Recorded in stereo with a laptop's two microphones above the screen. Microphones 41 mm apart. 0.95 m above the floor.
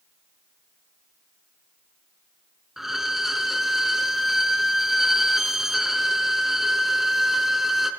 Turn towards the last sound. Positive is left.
turn(degrees=-5)  # may be behind; listen again after turning